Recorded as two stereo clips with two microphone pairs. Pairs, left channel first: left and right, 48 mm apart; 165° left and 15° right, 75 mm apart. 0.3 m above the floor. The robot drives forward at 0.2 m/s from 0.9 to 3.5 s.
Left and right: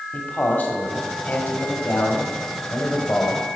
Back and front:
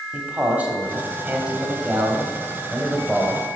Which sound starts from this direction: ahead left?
A man speaking, at 0.1 s.